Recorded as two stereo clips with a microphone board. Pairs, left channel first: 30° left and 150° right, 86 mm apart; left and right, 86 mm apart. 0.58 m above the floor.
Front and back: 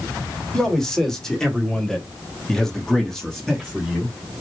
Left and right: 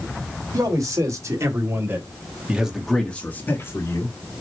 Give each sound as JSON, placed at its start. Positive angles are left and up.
{"t": 0.5, "sound": "a man speaking", "azimuth_deg": -55, "distance_m": 2.0}